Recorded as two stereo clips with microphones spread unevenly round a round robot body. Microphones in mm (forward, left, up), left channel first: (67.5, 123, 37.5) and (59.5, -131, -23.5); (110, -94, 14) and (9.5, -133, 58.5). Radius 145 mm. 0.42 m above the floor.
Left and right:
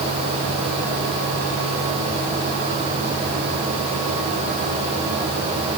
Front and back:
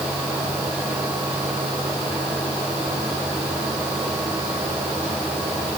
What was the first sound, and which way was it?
Only background noise.